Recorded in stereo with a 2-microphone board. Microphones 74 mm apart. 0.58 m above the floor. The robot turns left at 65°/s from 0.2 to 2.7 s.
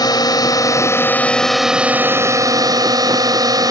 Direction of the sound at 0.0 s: 90° left.